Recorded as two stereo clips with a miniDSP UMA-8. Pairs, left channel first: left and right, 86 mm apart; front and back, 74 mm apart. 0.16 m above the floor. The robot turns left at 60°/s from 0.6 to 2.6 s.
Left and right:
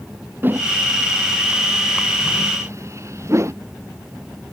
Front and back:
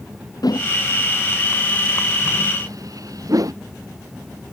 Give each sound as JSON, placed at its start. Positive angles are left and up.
{"t": 0.4, "sound": "a whoosh", "azimuth_deg": -25}